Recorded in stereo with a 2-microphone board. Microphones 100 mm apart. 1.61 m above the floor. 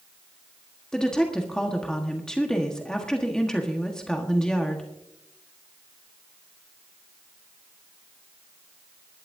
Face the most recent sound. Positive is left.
turn(degrees=5)  # may be behind; listen again after turning